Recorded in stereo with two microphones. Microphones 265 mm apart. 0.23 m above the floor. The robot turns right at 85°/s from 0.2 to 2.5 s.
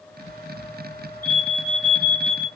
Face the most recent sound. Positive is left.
turn(degrees=-20)